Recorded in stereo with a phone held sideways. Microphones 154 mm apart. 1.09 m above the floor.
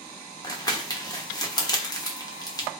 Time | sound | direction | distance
0.4 | crumpling | 25° left (ahead or behind) | 0.8 m